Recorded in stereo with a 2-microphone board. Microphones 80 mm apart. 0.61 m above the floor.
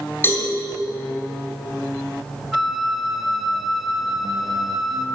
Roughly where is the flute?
Centre.